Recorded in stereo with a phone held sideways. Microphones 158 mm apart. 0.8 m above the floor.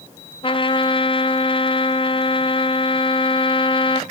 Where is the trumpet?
35° left (ahead or behind), 0.7 m.